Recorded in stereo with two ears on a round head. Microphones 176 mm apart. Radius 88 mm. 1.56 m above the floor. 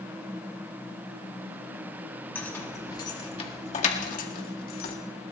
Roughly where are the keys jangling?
Centre.